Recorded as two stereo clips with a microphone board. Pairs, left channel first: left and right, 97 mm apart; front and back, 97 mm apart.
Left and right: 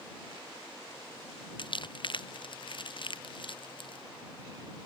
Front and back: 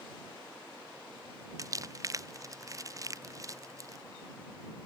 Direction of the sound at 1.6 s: 125° left.